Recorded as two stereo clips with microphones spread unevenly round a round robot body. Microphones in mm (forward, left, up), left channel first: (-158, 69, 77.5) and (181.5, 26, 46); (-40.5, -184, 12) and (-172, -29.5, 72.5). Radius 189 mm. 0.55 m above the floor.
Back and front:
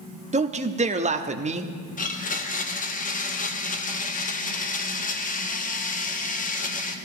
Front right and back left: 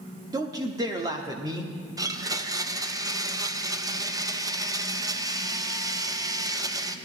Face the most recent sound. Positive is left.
turn(degrees=-140)